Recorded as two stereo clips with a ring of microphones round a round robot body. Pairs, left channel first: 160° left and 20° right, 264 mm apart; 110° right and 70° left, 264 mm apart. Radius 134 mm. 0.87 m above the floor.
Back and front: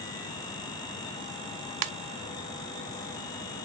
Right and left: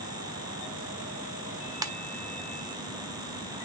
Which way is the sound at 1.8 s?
10° right.